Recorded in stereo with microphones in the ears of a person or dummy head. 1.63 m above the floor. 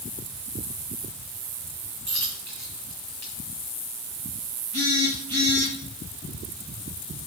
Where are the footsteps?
No footsteps in this recording.